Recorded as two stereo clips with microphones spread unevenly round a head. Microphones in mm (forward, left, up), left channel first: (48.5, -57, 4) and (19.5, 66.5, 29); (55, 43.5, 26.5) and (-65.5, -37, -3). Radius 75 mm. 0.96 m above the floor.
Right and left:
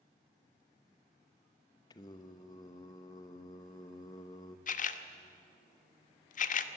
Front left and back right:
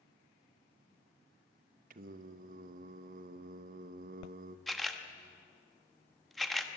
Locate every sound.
1.9 s singing: 130° right, 0.8 m
4.7 s a camera shutter: 55° right, 0.9 m